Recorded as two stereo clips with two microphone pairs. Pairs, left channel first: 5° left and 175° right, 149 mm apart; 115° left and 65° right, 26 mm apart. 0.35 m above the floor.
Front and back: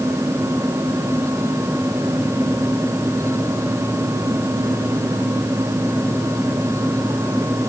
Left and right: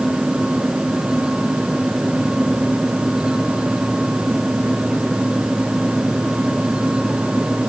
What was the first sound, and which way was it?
Only background noise.